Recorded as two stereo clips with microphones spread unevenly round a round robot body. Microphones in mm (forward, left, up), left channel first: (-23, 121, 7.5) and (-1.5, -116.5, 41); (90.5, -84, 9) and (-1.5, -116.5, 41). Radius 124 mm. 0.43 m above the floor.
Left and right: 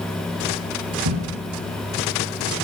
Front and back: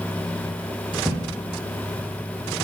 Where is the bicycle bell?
I don't hear a bicycle bell.